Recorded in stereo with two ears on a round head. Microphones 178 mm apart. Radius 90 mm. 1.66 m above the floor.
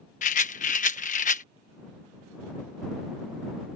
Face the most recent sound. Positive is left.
turn(degrees=40)  # may be behind; listen again after turning